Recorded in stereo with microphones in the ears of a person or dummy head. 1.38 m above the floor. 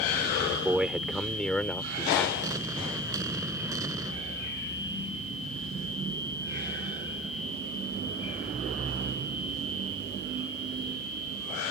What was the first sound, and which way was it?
A man speaking, 5° right (ahead or behind).